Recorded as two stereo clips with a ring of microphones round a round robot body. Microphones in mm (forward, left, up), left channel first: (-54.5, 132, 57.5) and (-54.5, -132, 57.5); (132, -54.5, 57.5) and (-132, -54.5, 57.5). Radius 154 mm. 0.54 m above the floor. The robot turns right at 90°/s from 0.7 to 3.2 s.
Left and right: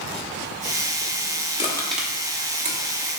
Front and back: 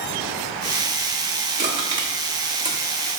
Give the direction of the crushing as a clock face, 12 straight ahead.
7 o'clock.